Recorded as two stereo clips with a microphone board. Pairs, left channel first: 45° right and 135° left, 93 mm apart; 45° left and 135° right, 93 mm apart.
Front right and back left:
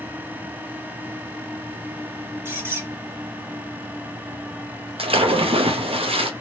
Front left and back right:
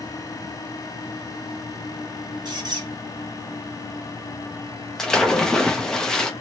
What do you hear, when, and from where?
2.5 s a squeak: 165° right, 1.7 m
5.0 s a splash: 130° left, 0.7 m